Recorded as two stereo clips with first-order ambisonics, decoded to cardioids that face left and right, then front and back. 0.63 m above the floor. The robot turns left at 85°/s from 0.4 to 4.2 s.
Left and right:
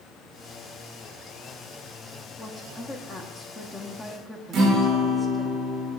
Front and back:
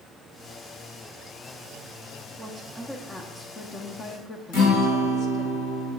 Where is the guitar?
40° right, 2.5 m.